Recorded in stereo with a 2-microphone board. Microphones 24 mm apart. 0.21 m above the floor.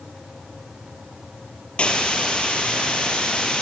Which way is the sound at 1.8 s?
60° left (ahead or behind).